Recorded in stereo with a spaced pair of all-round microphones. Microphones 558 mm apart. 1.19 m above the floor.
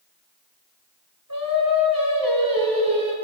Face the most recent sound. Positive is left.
turn(degrees=-35)  # may be behind; listen again after turning